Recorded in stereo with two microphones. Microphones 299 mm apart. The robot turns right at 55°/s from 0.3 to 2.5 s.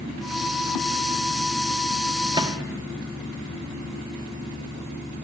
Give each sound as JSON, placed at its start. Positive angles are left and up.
{"t": 2.3, "sound": "a microwave", "side_deg": -15, "distance_m": 1.0}